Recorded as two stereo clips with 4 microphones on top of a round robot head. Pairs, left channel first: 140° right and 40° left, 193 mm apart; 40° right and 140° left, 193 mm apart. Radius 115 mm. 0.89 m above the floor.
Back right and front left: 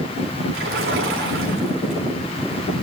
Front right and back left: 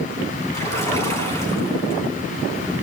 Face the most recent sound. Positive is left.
turn(degrees=30)